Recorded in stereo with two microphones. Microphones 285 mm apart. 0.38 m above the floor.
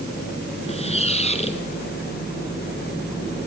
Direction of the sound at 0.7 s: 20° left (ahead or behind).